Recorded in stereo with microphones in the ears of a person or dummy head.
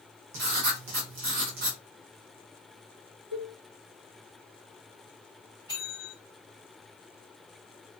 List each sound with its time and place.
0.3 s writing: 60° right (ahead or behind), 0.8 m
3.3 s a cowbell: 85° right, 1.2 m
5.7 s a bell: 20° right (ahead or behind), 1.9 m